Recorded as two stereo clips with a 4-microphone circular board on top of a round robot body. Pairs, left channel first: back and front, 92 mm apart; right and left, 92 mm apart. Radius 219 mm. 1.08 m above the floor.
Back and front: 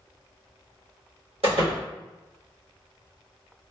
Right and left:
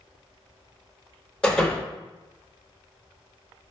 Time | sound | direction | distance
1.4 | a door slam | 10° right | 1.1 m